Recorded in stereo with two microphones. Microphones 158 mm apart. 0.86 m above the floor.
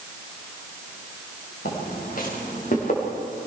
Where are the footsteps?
70° left (ahead or behind), 6.5 m; by 3.1 s 55° left (ahead or behind), 6.5 m.